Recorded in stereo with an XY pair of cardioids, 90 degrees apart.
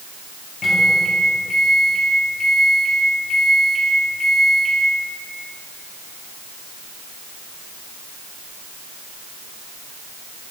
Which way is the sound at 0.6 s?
25° left.